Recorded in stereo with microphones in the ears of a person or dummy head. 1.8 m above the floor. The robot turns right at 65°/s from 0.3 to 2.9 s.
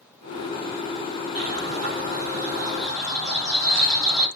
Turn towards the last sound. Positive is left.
turn(degrees=5)